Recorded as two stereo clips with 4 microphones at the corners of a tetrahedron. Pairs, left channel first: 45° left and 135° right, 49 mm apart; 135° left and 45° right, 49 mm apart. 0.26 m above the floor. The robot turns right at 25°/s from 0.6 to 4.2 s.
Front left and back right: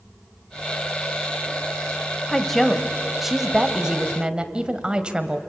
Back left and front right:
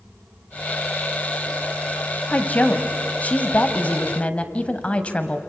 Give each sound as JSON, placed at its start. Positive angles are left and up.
{"t": 2.3, "sound": "a woman speaking", "azimuth_deg": 120, "distance_m": 1.3}